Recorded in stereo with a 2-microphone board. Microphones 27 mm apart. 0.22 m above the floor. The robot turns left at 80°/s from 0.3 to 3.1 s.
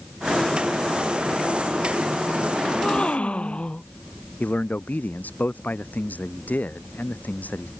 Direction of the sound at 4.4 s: 80° left.